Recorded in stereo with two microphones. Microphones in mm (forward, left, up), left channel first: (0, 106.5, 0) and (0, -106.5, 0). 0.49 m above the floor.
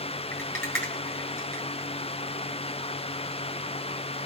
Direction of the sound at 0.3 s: 10° left (ahead or behind).